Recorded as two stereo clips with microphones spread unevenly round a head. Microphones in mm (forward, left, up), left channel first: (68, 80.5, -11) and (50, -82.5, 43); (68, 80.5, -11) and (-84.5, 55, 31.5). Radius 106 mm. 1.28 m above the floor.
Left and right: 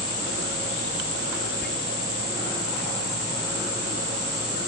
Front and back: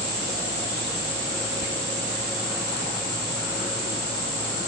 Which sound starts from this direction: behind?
Whispering, at 1.6 s.